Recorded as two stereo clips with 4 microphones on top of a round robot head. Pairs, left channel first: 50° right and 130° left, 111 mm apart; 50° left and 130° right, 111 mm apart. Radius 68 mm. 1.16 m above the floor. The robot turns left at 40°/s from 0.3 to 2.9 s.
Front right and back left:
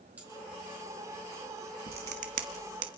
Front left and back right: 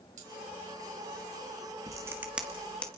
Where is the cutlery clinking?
150° right, 4 m; by 0.3 s 155° right, 4 m.